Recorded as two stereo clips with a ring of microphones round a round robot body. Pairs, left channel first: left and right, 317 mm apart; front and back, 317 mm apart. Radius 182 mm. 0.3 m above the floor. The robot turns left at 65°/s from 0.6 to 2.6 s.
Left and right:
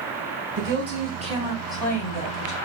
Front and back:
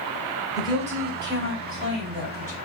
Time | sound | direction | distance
0.6 | a woman speaking | 105° right | 1.8 m